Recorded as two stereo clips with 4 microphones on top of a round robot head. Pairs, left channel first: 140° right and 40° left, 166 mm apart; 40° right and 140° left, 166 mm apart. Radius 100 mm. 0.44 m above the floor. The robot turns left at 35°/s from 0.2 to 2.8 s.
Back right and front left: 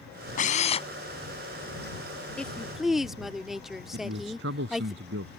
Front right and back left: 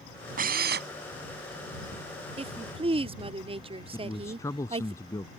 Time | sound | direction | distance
0.4 | a drill | straight behind | ?
2.4 | a woman speaking | 140° left | ?
3.9 | a man speaking | 35° left | ?